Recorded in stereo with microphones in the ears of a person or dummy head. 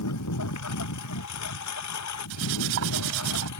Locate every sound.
0.0 s a lawn mower: 85° left
2.3 s cutlery clinking: 80° right